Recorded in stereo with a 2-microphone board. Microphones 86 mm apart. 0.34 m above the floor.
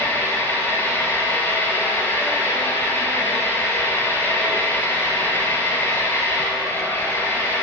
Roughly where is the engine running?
Left.